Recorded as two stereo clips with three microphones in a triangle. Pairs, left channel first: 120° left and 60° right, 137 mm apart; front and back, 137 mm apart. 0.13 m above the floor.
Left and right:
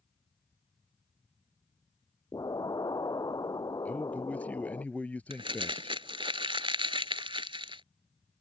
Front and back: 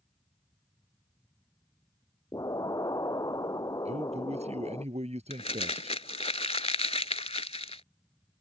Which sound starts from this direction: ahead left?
An explosion, at 2.3 s.